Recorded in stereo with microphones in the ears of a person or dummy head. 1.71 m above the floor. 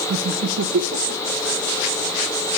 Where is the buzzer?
No buzzer in this recording.